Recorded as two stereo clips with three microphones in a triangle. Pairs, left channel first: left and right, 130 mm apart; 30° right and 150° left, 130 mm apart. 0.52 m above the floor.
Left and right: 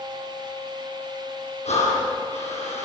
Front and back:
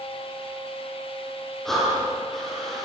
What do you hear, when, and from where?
1.6 s breathing: 60° left, 7 m